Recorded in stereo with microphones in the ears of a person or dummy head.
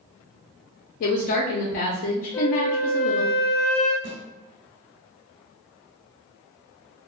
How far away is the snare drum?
About 1.3 m.